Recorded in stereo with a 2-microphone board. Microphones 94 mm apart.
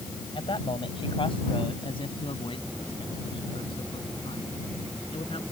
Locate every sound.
0.3 s a man speaking: 70° left (ahead or behind); by 5.4 s 80° left